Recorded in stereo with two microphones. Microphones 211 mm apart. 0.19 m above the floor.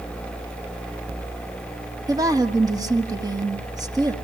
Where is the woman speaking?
20° right (ahead or behind), 1.0 m.